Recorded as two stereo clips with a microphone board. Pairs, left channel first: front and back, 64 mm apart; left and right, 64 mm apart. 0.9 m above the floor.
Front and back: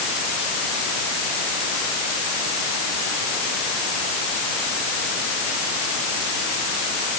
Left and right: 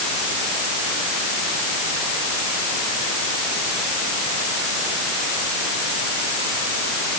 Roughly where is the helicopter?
I don't hear a helicopter.